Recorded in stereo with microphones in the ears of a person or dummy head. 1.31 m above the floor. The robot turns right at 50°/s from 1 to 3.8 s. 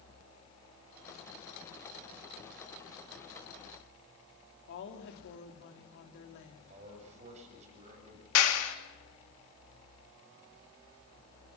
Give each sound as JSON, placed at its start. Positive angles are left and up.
{"t": 4.7, "sound": "a woman speaking", "side_deg": 65, "distance_m": 3.0}
{"t": 6.7, "sound": "a man speaking", "side_deg": -35, "distance_m": 8.0}
{"t": 8.3, "sound": "a clap", "side_deg": 85, "distance_m": 2.5}